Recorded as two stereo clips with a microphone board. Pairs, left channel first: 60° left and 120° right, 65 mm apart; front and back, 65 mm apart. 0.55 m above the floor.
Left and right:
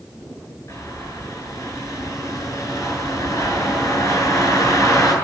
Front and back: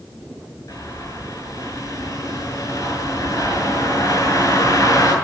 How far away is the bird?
About 7.5 m.